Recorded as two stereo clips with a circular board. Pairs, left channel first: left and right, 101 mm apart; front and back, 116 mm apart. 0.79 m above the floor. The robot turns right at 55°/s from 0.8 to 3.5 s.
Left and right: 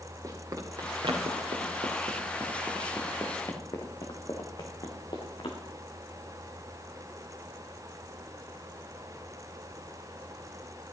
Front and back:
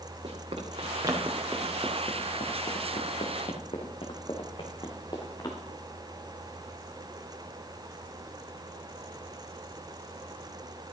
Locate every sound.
0.2 s running footsteps: 145° right, 3.5 m; by 5.6 s 55° left, 3 m